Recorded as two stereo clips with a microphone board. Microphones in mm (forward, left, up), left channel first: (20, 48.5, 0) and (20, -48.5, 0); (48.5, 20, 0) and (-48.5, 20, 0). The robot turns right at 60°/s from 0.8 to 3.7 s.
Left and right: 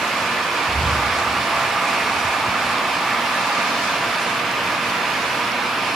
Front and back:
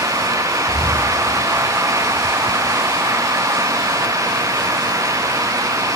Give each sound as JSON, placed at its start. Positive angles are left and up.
{"t": 0.7, "sound": "breathing", "azimuth_deg": 160, "distance_m": 3.5}